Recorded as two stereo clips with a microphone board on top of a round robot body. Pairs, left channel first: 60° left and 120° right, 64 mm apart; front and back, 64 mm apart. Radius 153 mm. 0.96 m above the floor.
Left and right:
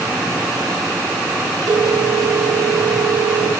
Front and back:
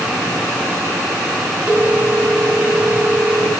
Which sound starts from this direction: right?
A phone ringing, at 1.7 s.